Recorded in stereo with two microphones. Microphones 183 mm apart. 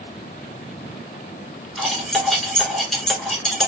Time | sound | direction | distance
1.8 | cutlery clinking | centre (ahead or behind) | 1.2 m